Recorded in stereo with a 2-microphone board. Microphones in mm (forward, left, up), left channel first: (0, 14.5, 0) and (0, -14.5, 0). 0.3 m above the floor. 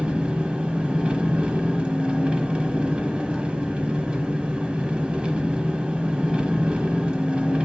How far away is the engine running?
About 0.9 m.